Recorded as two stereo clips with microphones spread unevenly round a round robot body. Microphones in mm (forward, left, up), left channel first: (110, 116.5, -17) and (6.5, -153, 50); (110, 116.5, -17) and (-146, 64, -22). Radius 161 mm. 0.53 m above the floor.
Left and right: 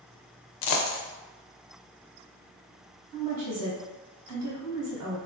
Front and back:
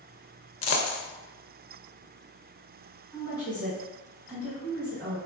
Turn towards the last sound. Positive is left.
turn(degrees=-85)